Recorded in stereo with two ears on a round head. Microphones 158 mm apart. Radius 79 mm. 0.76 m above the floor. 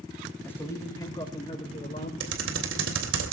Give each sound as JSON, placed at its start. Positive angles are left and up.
{"t": 0.4, "sound": "a man speaking", "side_deg": 10, "distance_m": 4.0}
{"t": 2.2, "sound": "typing on a keyboard", "side_deg": -80, "distance_m": 3.0}